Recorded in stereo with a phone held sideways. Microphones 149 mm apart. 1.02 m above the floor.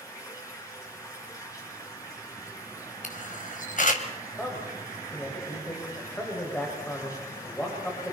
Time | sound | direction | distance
0.0 | running water | 20° left (ahead or behind) | 4.5 m
3.0 | a camera shutter | 60° left (ahead or behind) | 2.5 m
4.4 | a man speaking | 10° left (ahead or behind) | 5.5 m